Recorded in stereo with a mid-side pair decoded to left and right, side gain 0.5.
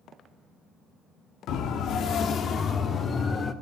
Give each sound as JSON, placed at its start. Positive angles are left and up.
{"t": 1.5, "sound": "a siren", "azimuth_deg": 70, "distance_m": 2.0}